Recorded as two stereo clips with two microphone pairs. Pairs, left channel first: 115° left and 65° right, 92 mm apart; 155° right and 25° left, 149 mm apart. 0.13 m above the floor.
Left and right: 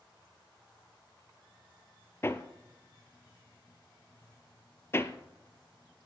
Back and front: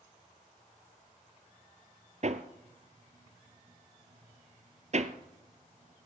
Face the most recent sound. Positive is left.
turn(degrees=55)